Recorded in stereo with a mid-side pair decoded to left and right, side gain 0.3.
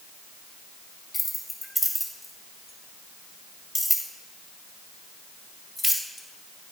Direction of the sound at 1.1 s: 20° left.